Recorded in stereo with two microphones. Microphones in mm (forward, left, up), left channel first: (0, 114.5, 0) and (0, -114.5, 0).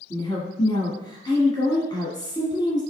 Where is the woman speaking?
15° left (ahead or behind), 1.5 m.